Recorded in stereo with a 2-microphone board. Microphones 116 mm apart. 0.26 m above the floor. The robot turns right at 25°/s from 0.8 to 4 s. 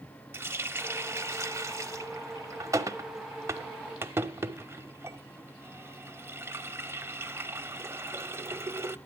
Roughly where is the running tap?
Centre.